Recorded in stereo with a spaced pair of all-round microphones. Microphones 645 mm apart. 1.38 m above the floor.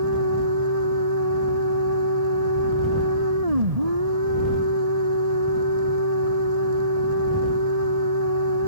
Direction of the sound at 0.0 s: 70° right (ahead or behind).